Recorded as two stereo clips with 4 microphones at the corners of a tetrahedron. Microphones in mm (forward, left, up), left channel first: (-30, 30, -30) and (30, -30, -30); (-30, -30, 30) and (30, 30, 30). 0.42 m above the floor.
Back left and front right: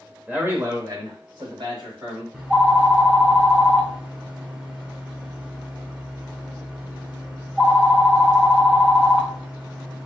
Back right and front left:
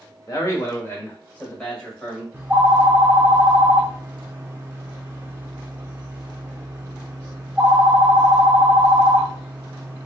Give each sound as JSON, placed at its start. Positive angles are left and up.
{"t": 0.3, "sound": "a man speaking", "azimuth_deg": -115, "distance_m": 1.0}
{"t": 2.3, "sound": "a phone ringing", "azimuth_deg": 10, "distance_m": 0.8}